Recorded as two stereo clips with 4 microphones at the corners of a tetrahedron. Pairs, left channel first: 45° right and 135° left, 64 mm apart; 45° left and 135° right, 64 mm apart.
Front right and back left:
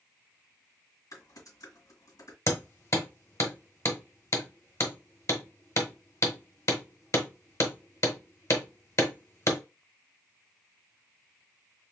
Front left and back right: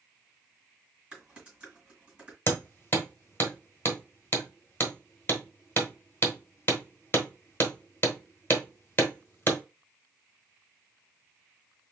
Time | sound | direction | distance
1.1 | typing on a keyboard | 60° right | 2 m
2.5 | hammering | 10° right | 1.1 m